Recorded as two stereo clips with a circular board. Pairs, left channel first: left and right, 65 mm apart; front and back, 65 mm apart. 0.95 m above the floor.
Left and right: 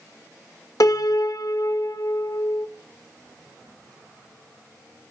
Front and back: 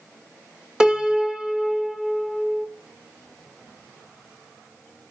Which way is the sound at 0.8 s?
105° left.